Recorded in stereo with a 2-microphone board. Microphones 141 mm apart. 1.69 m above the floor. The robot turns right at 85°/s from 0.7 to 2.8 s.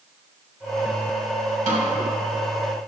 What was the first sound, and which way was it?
A snare drum, 60° right (ahead or behind).